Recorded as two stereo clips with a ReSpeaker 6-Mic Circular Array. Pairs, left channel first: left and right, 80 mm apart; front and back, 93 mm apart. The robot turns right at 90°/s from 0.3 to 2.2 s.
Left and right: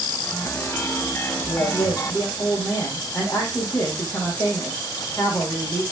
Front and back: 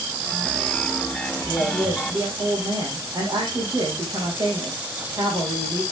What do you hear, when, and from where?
1.5 s a woman speaking: 75° left, 4.5 m; by 5.8 s 140° left, 4.5 m